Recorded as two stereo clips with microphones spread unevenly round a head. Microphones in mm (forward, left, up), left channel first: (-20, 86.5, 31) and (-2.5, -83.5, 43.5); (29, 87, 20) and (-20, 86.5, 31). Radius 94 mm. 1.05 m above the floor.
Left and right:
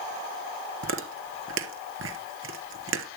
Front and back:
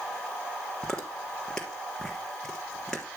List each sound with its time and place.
0.8 s chewing: 90° right, 3 m